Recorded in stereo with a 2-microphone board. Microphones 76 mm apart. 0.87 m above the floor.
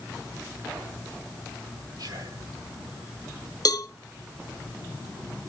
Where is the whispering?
70° right (ahead or behind), 1.5 m.